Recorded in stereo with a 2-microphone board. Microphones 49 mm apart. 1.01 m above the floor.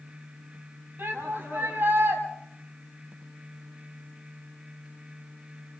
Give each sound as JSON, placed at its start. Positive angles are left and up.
{"t": 1.0, "sound": "a shout", "side_deg": -45, "distance_m": 8.0}